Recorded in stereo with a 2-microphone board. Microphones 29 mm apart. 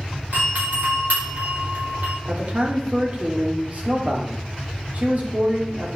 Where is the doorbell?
75° right (ahead or behind), 5 m.